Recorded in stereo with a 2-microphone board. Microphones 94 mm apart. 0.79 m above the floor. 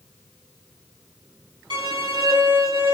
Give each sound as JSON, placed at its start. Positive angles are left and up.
{"t": 1.7, "sound": "a violin", "side_deg": -60, "distance_m": 1.1}